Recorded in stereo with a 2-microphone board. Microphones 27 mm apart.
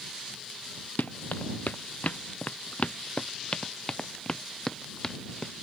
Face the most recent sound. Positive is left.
turn(degrees=15)  # may be behind; listen again after turning